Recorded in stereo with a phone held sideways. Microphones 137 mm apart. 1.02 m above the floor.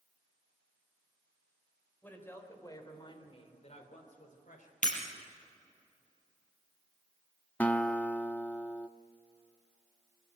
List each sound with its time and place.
2.0 s a woman speaking: 10° left (ahead or behind), 3.5 m; by 4.7 s 80° left, 3.5 m
4.8 s breaking glass: 70° left (ahead or behind), 4.5 m
7.6 s a guitar: 10° left (ahead or behind), 0.5 m